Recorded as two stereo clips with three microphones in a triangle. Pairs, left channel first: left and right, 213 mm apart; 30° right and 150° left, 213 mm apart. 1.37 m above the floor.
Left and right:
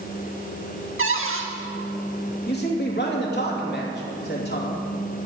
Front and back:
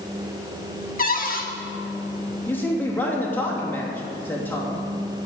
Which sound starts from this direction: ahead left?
A man speaking, at 2.5 s.